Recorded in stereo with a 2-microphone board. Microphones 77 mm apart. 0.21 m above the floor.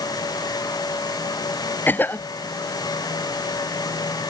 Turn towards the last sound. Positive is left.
turn(degrees=25)  # may be behind; listen again after turning